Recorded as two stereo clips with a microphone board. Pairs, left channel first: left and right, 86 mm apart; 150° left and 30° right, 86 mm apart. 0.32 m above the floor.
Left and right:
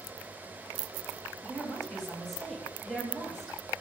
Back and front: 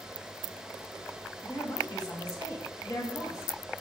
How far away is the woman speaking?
About 1.7 m.